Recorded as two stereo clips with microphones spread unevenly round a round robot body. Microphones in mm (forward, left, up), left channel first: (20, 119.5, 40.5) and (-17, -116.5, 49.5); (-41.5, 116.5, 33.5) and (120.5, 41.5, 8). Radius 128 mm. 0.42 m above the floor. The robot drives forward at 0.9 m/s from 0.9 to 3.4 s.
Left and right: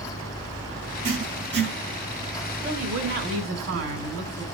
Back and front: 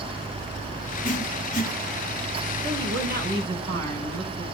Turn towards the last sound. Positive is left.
turn(degrees=-70)